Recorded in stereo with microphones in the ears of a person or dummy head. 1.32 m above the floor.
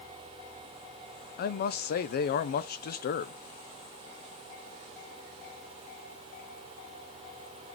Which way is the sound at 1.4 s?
55° left (ahead or behind).